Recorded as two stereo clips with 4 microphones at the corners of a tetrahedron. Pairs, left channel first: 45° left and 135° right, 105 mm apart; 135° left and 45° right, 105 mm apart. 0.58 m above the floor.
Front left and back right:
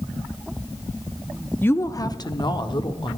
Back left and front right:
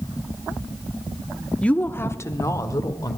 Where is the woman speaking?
75° left, 0.6 m; by 3.2 s 80° left, 1.5 m.